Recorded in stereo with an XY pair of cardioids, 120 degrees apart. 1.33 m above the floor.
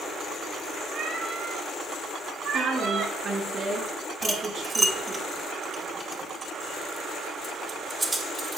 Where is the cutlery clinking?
25° right, 2 m.